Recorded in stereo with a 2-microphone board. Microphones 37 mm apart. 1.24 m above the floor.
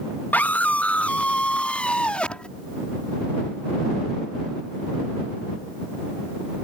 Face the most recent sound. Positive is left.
turn(degrees=30)  # may be behind; listen again after turning